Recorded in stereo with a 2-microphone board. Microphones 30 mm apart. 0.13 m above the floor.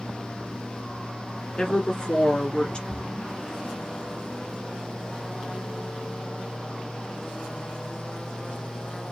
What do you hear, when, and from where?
1.6 s a woman speaking: 30° left (ahead or behind), 1.5 m
2.9 s a splash: centre (ahead or behind), 1.9 m